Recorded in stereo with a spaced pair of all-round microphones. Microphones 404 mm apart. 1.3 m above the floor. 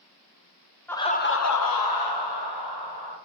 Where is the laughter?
5° left (ahead or behind), 0.5 m; by 3.1 s 70° left (ahead or behind), 1.3 m.